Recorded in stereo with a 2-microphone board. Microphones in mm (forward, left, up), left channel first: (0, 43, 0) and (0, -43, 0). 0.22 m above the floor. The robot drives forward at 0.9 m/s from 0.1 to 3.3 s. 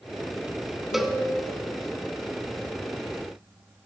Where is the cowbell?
Centre (ahead or behind), 0.7 m.